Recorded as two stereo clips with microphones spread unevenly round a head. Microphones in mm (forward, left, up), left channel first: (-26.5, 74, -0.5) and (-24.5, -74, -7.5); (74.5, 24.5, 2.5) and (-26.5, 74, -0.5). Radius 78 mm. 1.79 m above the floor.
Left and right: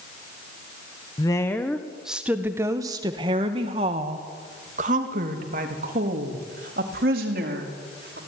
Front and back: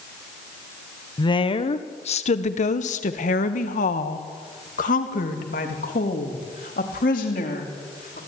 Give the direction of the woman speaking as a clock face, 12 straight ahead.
11 o'clock.